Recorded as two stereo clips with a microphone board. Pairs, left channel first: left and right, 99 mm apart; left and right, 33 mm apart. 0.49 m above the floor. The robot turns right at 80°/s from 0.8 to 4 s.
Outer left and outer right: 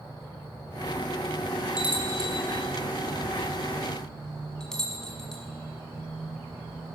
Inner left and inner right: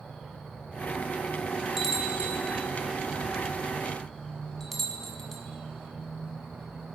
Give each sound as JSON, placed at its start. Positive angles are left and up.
{"t": 1.8, "sound": "a bell", "side_deg": -5, "distance_m": 5.5}